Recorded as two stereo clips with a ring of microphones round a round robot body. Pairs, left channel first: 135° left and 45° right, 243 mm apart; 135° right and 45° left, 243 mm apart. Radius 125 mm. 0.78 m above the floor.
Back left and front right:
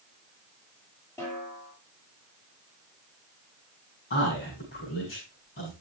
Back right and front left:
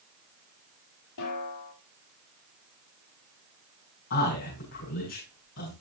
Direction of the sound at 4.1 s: 175° right.